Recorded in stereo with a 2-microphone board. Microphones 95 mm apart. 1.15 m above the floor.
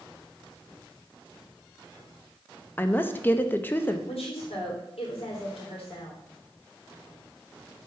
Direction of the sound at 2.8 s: 20° left (ahead or behind).